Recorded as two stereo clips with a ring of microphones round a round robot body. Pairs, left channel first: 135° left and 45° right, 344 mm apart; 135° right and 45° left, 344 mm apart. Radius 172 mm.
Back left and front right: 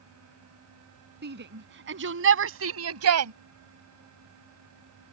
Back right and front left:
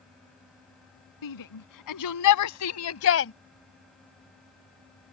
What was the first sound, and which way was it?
A shout, 105° right.